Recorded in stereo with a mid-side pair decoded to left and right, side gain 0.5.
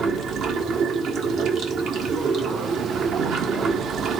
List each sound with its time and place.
0.0 s running water: 60° right, 1.3 m